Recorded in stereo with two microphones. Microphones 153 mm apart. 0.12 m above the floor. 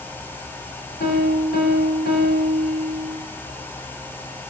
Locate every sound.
1.0 s a piano: 85° left, 10 m